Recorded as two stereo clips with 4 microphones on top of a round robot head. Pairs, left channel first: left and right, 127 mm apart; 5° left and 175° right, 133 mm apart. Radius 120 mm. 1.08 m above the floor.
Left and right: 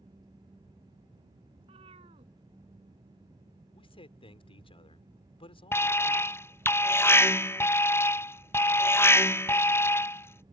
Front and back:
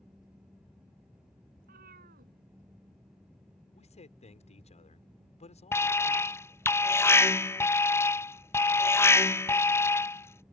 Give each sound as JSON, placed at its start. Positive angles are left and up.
{"t": 1.6, "sound": "a cat meowing", "azimuth_deg": -145}
{"t": 3.7, "sound": "a man speaking", "azimuth_deg": 45}
{"t": 5.7, "sound": "an alarm", "azimuth_deg": 50}